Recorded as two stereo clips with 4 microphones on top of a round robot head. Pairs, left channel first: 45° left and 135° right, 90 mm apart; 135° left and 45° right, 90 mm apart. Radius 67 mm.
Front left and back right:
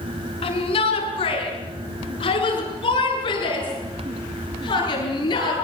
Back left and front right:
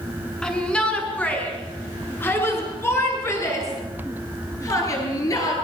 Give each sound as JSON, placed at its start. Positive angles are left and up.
{"t": 0.4, "sound": "a shout", "azimuth_deg": 55, "distance_m": 6.5}